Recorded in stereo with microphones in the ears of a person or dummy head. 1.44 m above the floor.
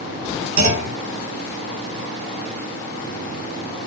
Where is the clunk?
50° right (ahead or behind), 1.2 m.